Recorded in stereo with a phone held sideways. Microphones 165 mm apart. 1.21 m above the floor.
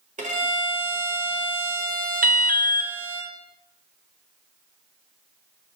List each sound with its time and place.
0.2 s a violin: 50° right (ahead or behind), 1.4 m
2.2 s an alarm: 60° right (ahead or behind), 0.8 m